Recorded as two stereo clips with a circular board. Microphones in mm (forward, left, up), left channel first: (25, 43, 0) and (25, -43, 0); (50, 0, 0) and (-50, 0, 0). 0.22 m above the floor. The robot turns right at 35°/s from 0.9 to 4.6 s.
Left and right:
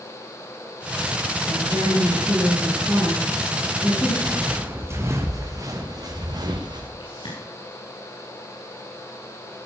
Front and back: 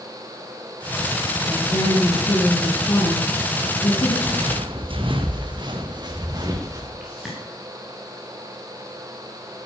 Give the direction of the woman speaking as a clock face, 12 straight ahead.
2 o'clock.